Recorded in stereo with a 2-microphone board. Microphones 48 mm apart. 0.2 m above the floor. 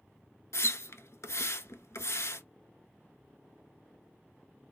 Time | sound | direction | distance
0.5 | a splash | 75° left (ahead or behind) | 0.6 m